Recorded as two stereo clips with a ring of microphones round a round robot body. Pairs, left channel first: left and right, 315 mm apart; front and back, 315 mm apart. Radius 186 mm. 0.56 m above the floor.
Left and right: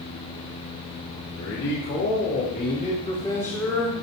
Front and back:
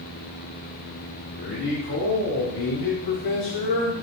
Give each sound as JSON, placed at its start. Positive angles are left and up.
{"t": 1.4, "sound": "a man speaking", "azimuth_deg": 45, "distance_m": 3.5}